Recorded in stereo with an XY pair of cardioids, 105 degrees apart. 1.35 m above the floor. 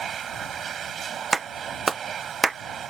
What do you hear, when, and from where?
0.0 s a machine running: 55° right
1.3 s a clap: 30° right